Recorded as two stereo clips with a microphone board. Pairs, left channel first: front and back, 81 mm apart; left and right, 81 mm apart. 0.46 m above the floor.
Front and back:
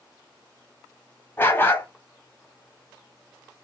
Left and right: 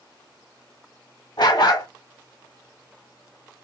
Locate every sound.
1.4 s a dog barking: 65° left, 1.1 m